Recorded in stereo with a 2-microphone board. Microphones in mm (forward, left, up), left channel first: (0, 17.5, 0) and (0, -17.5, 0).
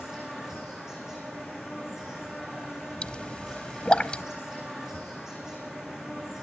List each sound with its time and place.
0.0 s an insect: 15° right (ahead or behind), 9 m
3.0 s a pop: 30° left (ahead or behind), 0.9 m